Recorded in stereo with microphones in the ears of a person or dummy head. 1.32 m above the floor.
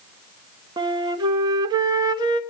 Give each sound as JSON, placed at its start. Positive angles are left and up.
{"t": 0.8, "sound": "a flute", "side_deg": -20, "distance_m": 1.1}